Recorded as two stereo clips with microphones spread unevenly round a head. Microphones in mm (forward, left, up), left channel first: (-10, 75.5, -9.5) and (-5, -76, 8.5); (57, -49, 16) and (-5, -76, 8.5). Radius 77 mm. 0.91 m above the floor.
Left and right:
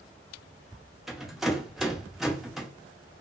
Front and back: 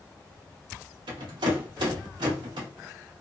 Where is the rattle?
175° right, 0.7 m.